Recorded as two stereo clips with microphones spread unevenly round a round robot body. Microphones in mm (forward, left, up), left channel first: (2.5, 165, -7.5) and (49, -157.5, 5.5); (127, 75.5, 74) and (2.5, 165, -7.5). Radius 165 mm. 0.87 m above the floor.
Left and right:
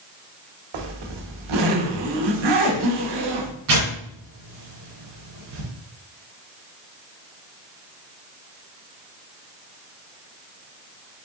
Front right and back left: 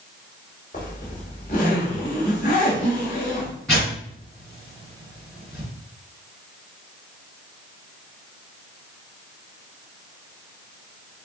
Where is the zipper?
90° right, 1.1 m.